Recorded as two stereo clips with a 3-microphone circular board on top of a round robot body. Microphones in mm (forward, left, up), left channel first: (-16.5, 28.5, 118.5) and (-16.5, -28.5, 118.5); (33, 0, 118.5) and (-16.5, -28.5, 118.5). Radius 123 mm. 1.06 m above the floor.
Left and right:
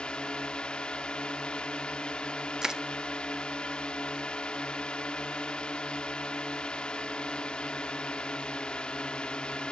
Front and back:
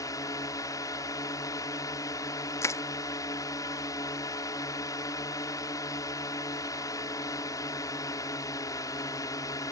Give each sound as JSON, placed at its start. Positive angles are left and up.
{"t": 0.0, "sound": "a drone", "azimuth_deg": 15}
{"t": 2.6, "sound": "crushing", "azimuth_deg": -10}